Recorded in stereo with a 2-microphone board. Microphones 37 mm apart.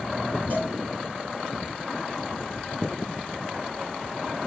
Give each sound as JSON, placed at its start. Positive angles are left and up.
{"t": 0.5, "sound": "a cowbell", "side_deg": -55, "distance_m": 6.5}